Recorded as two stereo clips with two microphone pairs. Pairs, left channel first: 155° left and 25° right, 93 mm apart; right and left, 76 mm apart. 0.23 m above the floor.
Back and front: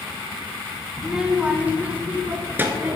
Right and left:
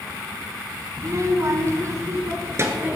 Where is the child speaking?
60° left, 1.7 m; by 3.0 s 40° left, 3.5 m.